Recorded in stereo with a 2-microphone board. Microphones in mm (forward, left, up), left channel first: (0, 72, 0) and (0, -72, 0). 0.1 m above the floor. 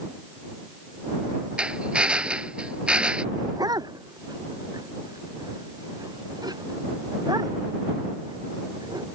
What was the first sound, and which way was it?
A drill, 5° right (ahead or behind).